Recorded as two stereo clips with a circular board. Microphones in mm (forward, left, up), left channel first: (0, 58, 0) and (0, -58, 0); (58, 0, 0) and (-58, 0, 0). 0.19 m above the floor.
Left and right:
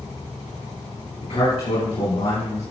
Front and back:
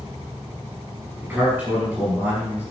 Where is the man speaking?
105° left, 3.5 m.